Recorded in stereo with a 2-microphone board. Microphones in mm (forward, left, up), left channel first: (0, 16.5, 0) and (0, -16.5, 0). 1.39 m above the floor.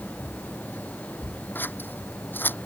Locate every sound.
1.6 s scissors: 85° left